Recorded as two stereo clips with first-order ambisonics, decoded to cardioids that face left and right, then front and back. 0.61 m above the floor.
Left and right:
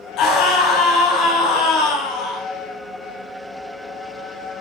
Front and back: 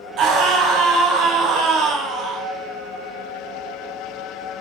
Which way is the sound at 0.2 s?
135° left.